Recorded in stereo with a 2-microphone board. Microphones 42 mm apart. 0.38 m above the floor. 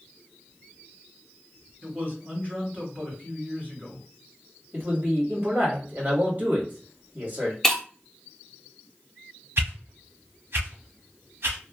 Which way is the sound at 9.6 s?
70° right (ahead or behind).